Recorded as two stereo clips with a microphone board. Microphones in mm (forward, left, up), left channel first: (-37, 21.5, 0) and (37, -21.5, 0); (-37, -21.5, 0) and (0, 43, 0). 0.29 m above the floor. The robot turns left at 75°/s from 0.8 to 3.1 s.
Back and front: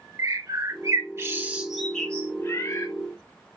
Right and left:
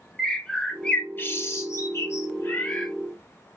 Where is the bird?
45° right, 0.8 m; by 2.9 s 155° left, 0.8 m.